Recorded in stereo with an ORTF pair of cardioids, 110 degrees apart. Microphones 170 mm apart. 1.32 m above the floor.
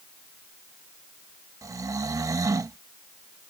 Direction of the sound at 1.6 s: 20° right.